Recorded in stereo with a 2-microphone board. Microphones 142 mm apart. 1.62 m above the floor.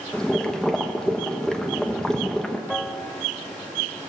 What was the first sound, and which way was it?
Boiling, 5° left (ahead or behind).